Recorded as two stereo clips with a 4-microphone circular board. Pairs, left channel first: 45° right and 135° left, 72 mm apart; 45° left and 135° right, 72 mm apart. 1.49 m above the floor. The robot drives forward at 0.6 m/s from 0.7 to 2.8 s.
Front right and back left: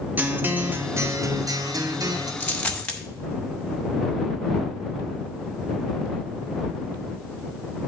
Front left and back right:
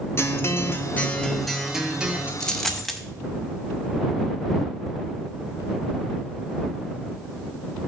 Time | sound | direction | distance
0.2 | a guitar | 80° left | 0.6 m
2.4 | a dropped coin | 25° right | 0.9 m